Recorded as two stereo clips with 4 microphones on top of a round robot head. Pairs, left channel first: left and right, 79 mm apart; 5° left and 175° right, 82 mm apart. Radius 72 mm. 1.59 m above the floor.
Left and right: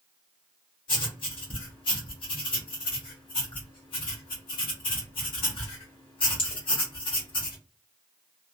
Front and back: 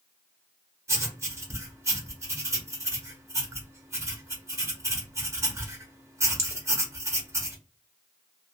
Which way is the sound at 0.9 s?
130° left.